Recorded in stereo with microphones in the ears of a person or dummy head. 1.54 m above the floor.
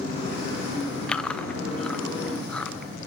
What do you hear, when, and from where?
1.1 s chewing: 5° left (ahead or behind), 0.5 m